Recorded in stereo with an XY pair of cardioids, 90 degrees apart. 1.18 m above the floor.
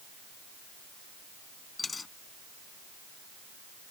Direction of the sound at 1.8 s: 35° left.